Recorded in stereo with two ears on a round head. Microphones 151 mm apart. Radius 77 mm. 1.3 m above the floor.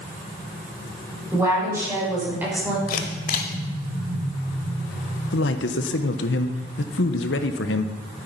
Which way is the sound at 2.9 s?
55° left (ahead or behind).